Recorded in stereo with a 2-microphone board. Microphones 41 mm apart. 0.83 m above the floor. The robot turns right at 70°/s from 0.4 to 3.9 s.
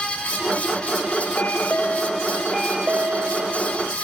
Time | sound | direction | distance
1.4 | a chime | 100° left | 1.1 m